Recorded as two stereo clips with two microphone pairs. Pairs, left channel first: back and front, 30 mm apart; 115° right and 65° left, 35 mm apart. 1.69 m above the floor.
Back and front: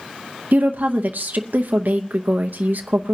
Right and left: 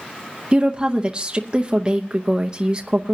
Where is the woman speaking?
Straight ahead, 0.8 m.